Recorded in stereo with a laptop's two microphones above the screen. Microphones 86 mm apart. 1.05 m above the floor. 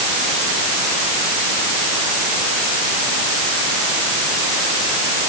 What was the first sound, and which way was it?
Only background noise.